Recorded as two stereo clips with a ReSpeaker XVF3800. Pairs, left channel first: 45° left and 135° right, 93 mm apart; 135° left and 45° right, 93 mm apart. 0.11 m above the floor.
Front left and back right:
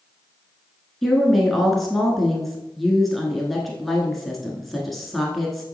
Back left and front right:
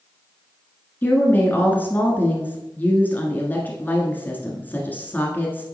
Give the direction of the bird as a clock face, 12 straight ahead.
I don't hear a bird.